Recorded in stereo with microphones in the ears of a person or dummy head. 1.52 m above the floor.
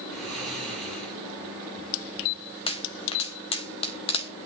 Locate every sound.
0.1 s snoring: centre (ahead or behind), 4 m
2.7 s a pop: 30° left (ahead or behind), 1.2 m